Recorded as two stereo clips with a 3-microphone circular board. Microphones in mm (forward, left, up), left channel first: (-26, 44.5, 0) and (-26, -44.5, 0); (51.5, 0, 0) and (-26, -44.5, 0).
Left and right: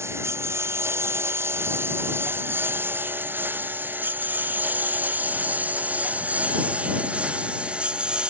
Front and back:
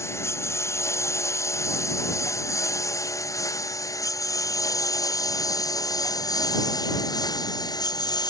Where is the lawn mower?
30° right; by 8.3 s 10° right.